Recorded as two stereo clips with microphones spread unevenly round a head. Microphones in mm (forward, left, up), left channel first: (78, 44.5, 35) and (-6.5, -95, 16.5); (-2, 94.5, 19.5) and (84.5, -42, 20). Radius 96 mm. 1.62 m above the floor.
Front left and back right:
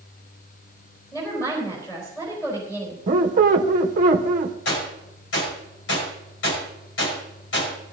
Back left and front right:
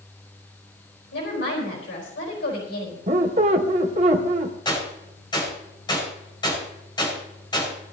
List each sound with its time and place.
1.1 s a woman speaking: 135° left, 4 m
3.1 s a squeak: 95° right, 1.1 m
4.7 s a gunshot: 60° left, 5.5 m